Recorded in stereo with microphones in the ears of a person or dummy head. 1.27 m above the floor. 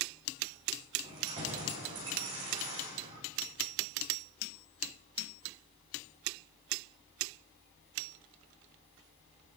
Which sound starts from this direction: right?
Keys jangling, at 1.0 s.